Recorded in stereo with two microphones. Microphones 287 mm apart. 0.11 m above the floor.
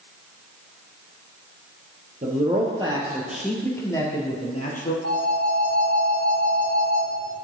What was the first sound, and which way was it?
A man speaking, 30° right (ahead or behind).